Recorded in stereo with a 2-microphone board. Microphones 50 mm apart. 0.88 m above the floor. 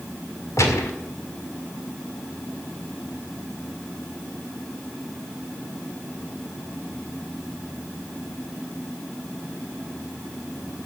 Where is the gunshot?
85° left, 2 m.